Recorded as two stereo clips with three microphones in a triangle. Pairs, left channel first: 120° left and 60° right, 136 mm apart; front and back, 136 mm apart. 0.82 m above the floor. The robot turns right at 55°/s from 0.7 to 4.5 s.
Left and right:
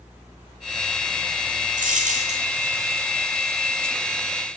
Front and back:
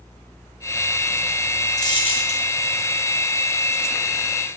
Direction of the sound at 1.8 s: 60° right.